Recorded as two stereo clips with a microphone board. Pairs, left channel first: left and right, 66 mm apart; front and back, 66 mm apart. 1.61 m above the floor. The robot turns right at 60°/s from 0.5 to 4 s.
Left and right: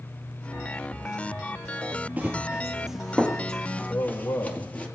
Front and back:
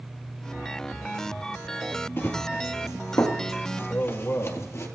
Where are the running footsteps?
40° right, 2 m; by 4.9 s 25° left, 2.5 m.